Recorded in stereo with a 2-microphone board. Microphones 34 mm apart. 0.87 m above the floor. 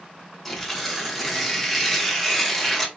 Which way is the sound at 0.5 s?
Centre (ahead or behind).